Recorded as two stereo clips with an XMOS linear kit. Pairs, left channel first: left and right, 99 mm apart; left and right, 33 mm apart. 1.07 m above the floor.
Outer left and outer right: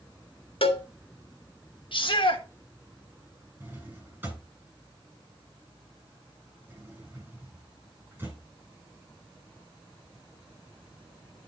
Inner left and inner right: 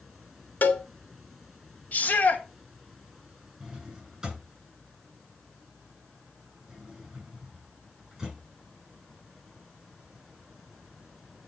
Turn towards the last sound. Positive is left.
turn(degrees=-20)  # may be behind; listen again after turning